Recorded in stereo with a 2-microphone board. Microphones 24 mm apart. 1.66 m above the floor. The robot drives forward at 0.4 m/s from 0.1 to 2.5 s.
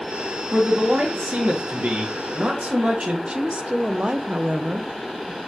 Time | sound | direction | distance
0.5 | a man speaking | 80° right | 1.9 m
3.3 | a woman speaking | 55° right (ahead or behind) | 0.8 m